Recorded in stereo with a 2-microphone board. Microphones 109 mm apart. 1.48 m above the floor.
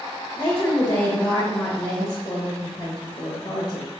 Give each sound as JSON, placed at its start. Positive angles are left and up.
{"t": 0.4, "sound": "a woman speaking", "side_deg": 55, "distance_m": 2.5}